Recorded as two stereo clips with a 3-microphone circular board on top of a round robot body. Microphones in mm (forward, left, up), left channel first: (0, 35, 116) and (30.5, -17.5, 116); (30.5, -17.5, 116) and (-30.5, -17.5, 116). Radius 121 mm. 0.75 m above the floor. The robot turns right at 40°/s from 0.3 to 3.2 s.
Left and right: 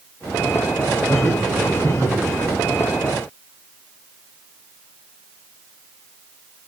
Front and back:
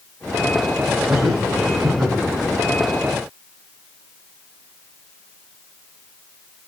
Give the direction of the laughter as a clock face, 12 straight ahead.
5 o'clock.